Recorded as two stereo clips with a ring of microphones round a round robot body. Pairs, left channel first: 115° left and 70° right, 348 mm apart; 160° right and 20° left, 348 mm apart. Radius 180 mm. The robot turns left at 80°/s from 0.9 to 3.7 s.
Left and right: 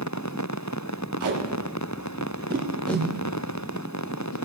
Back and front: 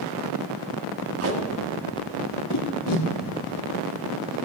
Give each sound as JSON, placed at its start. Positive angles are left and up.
{"t": 1.2, "sound": "tape being pulled", "azimuth_deg": -25, "distance_m": 1.6}